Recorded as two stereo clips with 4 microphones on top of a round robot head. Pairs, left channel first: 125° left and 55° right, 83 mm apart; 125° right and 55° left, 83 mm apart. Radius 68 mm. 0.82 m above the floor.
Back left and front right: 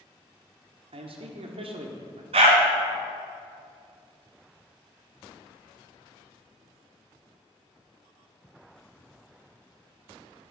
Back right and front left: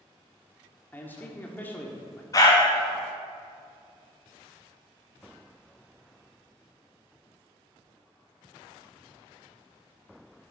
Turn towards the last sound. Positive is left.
turn(degrees=-70)